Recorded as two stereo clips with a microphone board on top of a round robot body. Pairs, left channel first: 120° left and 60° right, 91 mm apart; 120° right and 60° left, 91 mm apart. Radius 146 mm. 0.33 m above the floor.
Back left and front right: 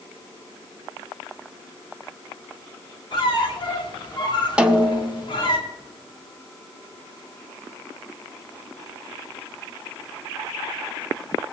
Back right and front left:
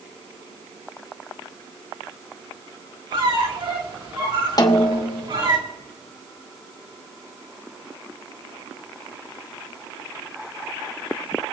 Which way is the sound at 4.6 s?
135° right.